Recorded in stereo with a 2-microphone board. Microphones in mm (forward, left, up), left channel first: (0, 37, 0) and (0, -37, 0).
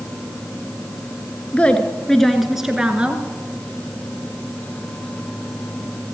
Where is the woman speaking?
20° left (ahead or behind), 1.4 m; by 3.2 s 20° right (ahead or behind), 1.4 m.